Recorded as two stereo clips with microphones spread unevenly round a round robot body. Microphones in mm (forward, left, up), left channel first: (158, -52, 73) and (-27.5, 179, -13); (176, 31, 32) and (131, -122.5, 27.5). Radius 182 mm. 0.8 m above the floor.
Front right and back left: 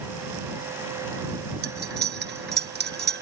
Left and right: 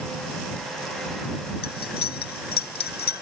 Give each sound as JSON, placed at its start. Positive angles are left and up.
{"t": 1.6, "sound": "cutlery clinking", "azimuth_deg": 75}